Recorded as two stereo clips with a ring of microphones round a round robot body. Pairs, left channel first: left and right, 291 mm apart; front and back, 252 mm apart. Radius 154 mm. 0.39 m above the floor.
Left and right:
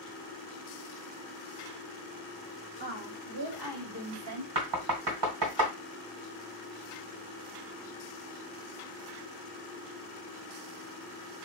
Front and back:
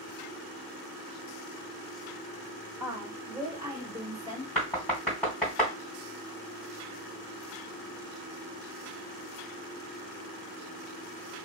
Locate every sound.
2.8 s a woman speaking: 105° right, 1.3 m; by 4.5 s 110° right, 2 m
4.5 s knocking: 85° right, 1.9 m